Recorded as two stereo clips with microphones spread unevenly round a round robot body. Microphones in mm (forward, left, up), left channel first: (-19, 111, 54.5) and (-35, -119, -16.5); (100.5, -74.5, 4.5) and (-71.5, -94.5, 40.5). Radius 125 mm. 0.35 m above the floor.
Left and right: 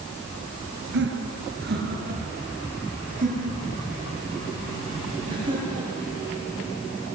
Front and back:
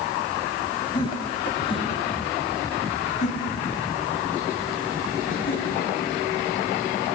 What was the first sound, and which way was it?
Laughter, 55° right.